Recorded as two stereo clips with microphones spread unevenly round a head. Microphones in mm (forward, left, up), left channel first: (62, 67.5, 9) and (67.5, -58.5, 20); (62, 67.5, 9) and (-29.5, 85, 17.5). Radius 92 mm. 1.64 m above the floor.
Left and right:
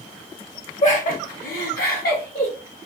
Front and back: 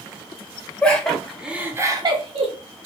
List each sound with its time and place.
0.8 s laughter: 65° left, 1.3 m; by 2.5 s 160° left, 0.9 m